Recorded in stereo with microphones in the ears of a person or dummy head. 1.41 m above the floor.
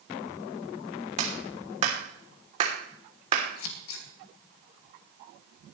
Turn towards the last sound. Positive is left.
turn(degrees=75)  # may be behind; listen again after turning